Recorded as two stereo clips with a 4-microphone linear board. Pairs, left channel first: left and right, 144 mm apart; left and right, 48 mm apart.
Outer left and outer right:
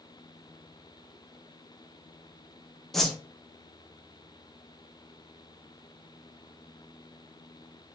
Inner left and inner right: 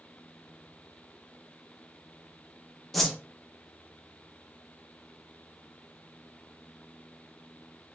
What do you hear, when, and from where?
2.9 s a whoosh: centre (ahead or behind), 0.6 m